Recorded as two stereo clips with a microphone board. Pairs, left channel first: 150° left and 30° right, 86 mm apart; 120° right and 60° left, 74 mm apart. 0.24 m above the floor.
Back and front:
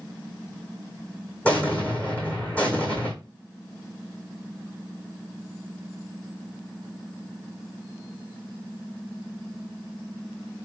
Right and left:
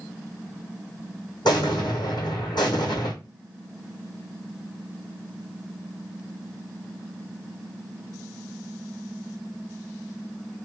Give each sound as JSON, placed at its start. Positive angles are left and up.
{"t": 1.4, "sound": "an explosion", "azimuth_deg": -135, "distance_m": 1.8}